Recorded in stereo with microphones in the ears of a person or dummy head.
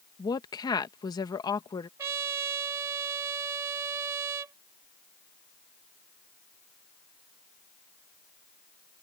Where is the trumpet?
20° right (ahead or behind).